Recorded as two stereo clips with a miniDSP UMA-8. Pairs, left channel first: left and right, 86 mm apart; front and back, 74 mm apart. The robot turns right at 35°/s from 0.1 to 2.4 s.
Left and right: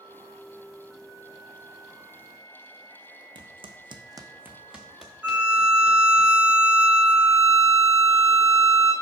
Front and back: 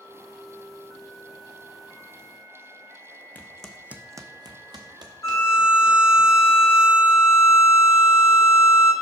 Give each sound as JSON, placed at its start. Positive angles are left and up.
{"t": 3.4, "sound": "footsteps", "azimuth_deg": -70, "distance_m": 0.7}
{"t": 5.2, "sound": "a violin", "azimuth_deg": -20, "distance_m": 0.7}